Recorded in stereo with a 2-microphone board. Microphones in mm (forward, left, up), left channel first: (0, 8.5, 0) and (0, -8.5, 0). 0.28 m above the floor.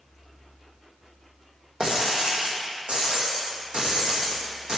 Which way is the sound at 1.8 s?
85° right.